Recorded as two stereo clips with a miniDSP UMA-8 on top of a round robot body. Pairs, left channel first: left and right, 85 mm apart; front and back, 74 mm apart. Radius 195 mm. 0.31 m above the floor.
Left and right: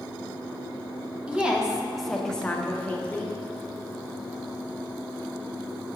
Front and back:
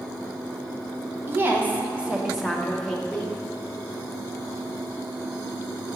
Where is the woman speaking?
155° right, 1.2 m; by 3.3 s 55° left, 1.1 m.